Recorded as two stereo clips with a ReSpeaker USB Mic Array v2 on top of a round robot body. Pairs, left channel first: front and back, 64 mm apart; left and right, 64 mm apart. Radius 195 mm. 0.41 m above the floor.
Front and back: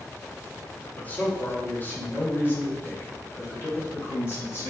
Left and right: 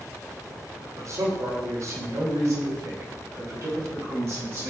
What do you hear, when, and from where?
1.0 s a man speaking: 65° right, 2 m; by 4.7 s 50° right, 4 m